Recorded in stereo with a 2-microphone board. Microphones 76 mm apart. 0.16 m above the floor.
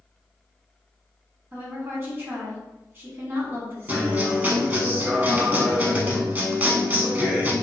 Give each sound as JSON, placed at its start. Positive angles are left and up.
{"t": 1.5, "sound": "a woman speaking", "side_deg": -30, "distance_m": 1.1}
{"t": 3.9, "sound": "a guitar", "side_deg": -25, "distance_m": 0.5}